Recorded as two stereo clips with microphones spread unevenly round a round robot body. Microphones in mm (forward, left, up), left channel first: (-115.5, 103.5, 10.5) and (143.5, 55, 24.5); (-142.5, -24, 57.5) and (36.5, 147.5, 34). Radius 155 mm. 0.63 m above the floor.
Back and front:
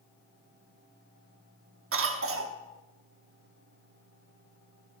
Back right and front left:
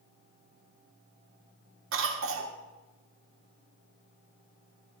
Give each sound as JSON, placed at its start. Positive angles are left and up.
{"t": 1.9, "sound": "a cough", "azimuth_deg": 20, "distance_m": 1.3}